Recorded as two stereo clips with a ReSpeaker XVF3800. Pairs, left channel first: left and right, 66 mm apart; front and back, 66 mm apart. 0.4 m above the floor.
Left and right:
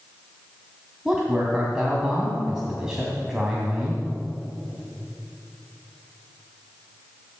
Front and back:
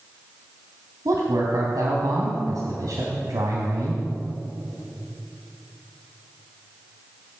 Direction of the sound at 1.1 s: 170° right.